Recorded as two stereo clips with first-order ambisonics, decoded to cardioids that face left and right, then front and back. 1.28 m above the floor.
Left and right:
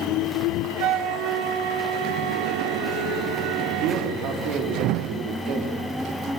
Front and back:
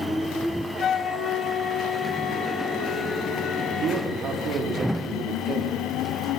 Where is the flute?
60° right, 1.2 m.